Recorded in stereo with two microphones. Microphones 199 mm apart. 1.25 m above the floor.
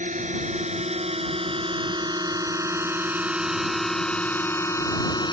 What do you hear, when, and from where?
0.0 s a drone: 40° right (ahead or behind); by 5.3 s 25° left (ahead or behind)